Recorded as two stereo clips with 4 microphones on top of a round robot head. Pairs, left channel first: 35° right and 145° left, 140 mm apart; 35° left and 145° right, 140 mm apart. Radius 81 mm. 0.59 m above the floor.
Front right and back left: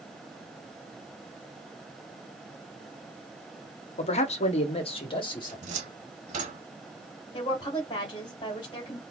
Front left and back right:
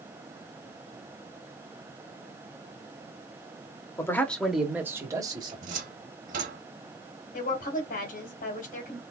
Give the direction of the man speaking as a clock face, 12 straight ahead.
1 o'clock.